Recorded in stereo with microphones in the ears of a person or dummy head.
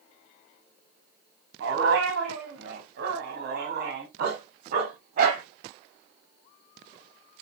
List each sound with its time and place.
1.6 s a dog barking: 65° right (ahead or behind), 4 m; by 5.4 s 45° right (ahead or behind), 5 m